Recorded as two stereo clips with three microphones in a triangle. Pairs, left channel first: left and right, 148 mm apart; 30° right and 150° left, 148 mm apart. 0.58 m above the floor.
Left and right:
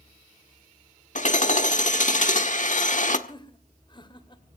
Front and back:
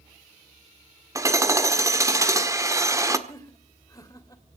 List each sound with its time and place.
1.1 s hammering: 85° left, 1.4 m
3.3 s laughter: 35° left, 2.5 m